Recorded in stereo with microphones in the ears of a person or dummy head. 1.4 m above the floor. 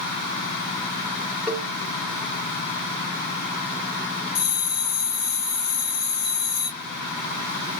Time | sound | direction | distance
1.5 | a cowbell | 5° right (ahead or behind) | 0.9 m
4.3 | a bell | 55° left (ahead or behind) | 1.0 m